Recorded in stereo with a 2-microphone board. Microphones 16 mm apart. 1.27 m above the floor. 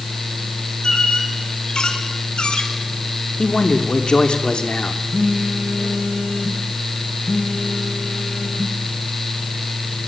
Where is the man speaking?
70° left (ahead or behind), 3 m.